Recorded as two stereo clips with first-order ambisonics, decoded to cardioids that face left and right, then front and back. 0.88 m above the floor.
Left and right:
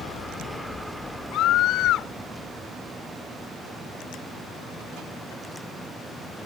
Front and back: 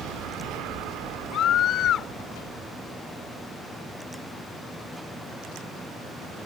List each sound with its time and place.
1.3 s a scream: 50° left